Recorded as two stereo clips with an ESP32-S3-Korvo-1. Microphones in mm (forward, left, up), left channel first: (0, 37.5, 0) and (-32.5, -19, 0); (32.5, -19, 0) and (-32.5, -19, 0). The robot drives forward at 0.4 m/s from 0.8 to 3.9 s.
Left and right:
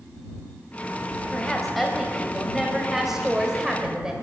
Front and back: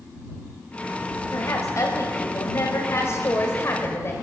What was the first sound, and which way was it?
A woman speaking, 30° right.